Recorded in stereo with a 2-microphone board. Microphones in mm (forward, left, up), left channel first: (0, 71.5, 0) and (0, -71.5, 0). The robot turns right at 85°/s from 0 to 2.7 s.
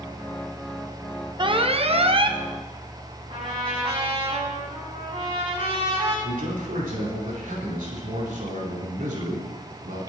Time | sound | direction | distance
1.4 | an alarm | 130° right | 0.9 m
3.3 | a trumpet | 45° right (ahead or behind) | 7.5 m
6.2 | a man speaking | 80° right | 5 m